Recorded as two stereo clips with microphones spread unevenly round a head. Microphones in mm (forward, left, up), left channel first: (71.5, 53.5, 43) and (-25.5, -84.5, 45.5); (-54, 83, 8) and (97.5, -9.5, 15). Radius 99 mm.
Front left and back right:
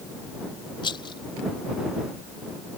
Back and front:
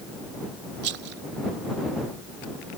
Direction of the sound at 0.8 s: 10° right.